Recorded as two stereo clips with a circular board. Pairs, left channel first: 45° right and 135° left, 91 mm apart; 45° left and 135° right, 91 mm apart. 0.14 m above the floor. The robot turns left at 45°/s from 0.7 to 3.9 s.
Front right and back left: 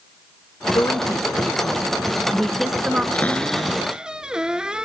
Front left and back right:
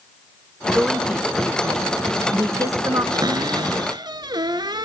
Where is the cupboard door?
110° right, 0.9 m; by 4.8 s 145° right, 0.9 m.